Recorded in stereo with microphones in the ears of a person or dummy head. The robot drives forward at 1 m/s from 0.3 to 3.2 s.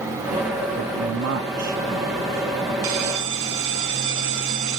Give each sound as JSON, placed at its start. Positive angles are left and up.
{"t": 0.8, "sound": "a man speaking", "side_deg": -85, "distance_m": 1.3}
{"t": 2.8, "sound": "a bell", "side_deg": -85, "distance_m": 1.9}